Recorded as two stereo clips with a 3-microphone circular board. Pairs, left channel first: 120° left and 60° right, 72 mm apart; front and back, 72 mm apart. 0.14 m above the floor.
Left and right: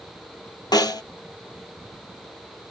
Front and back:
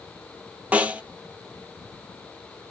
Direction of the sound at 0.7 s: 110° left.